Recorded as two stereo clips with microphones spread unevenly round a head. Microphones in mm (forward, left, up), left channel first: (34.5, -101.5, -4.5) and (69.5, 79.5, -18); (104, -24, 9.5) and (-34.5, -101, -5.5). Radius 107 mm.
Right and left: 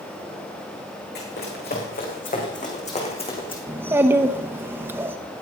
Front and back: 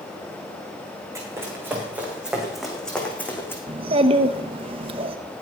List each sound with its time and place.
1.1 s running footsteps: 80° right, 5.5 m; by 3.6 s 45° right, 4.5 m
3.7 s a child speaking: 155° left, 0.7 m